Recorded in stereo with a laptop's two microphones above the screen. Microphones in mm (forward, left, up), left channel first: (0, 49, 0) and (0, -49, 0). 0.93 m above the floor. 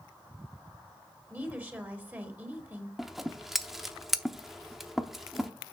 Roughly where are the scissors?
Centre.